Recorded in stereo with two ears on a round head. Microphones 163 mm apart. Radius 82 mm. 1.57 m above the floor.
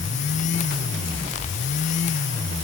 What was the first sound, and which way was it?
Only background noise.